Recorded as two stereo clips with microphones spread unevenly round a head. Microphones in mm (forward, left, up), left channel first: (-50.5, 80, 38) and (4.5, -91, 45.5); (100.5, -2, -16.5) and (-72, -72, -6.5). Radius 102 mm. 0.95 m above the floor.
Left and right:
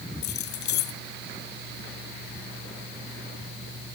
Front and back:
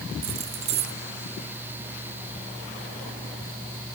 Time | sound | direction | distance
0.2 | keys jangling | 140° left | ?